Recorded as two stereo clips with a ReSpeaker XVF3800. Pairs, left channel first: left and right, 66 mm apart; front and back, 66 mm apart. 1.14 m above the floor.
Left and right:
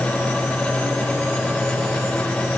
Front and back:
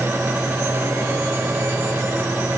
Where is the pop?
No pop in this recording.